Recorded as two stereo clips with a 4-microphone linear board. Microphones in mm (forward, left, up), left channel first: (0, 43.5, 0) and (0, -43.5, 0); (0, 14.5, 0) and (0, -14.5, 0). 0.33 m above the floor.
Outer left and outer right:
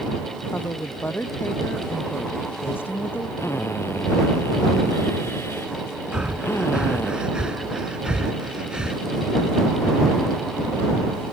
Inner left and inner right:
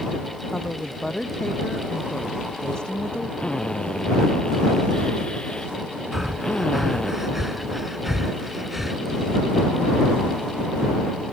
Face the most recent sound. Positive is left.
turn(degrees=-10)  # may be behind; listen again after turning